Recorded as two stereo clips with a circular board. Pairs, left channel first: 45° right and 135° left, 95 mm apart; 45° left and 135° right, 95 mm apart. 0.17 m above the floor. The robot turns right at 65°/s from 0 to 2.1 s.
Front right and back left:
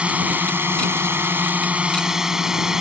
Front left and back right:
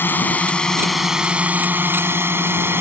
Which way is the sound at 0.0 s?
75° left.